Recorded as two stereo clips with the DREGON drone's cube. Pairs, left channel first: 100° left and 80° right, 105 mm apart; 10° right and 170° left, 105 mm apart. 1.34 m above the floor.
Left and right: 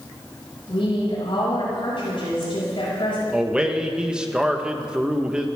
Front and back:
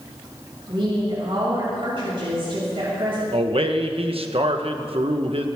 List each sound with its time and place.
0.7 s a woman speaking: 135° left, 6.5 m
3.3 s a man speaking: 160° right, 1.3 m